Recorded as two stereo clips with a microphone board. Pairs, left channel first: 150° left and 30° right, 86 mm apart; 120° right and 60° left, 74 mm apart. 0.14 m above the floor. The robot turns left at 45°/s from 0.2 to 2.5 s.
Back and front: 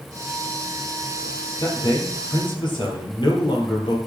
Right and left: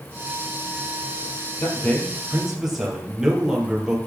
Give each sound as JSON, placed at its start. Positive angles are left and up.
{"t": 1.6, "sound": "a man speaking", "azimuth_deg": -175, "distance_m": 4.0}